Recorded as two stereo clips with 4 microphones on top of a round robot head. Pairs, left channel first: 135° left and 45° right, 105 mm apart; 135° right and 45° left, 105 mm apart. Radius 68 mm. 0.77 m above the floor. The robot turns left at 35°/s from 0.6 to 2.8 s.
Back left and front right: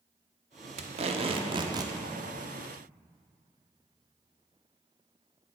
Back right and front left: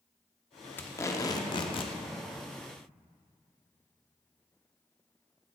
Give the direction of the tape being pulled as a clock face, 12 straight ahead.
2 o'clock.